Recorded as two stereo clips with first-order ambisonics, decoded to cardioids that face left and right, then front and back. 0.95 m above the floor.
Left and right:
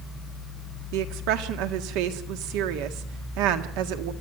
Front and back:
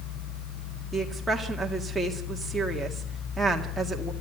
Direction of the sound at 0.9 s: 95° right.